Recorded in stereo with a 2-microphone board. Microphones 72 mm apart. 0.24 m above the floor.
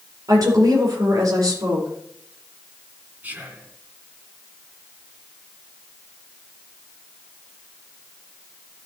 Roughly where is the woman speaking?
Right.